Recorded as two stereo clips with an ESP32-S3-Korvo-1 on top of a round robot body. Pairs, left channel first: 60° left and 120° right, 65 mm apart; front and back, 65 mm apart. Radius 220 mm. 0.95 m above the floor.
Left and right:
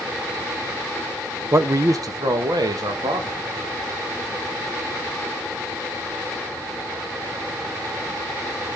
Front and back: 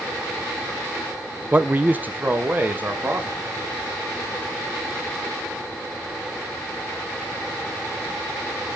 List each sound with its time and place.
1.5 s a man speaking: 120° right, 1.0 m; by 3.4 s 115° right, 3.5 m